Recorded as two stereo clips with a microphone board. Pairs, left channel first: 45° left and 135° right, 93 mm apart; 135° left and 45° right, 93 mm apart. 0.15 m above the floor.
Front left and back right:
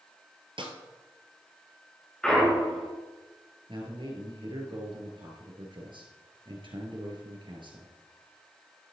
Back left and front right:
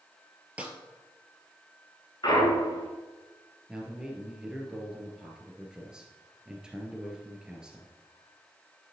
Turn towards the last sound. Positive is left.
turn(degrees=-125)